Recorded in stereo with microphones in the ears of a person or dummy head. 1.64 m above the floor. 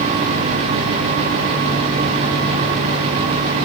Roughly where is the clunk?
I don't hear a clunk.